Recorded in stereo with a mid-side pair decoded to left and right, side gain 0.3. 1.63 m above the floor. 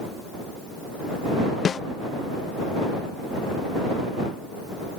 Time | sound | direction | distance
1.6 | a snare drum | 60° left | ?